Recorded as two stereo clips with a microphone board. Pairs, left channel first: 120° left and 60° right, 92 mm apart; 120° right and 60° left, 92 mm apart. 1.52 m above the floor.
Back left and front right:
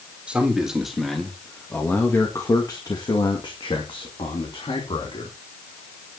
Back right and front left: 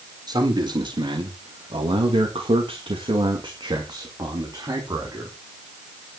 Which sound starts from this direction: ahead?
A man speaking, at 0.3 s.